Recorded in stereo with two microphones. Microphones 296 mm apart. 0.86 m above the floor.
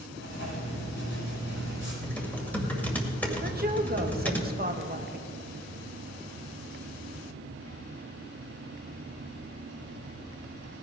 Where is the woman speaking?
30° right (ahead or behind), 1.0 m.